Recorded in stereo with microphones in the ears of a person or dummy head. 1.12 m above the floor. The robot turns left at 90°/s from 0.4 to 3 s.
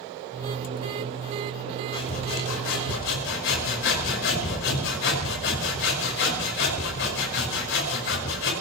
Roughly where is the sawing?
Behind.